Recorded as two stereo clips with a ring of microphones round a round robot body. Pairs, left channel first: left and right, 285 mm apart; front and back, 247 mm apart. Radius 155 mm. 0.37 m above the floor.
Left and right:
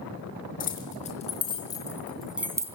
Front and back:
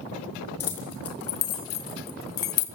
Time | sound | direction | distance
0.6 | keys jangling | 30° left | 4.5 m